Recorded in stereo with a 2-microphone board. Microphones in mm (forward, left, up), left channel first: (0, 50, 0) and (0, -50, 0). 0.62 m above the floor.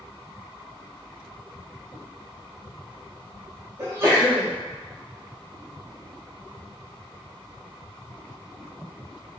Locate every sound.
3.8 s a sneeze: 25° right (ahead or behind), 0.8 m